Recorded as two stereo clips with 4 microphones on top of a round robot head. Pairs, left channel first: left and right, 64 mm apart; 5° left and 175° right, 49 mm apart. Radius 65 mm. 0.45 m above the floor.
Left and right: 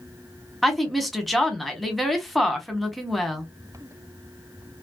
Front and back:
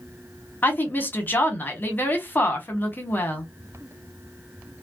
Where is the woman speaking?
Straight ahead, 1.1 m.